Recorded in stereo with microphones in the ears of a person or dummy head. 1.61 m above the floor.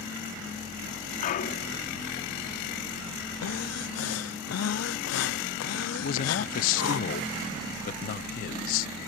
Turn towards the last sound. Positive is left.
turn(degrees=50)  # may be behind; listen again after turning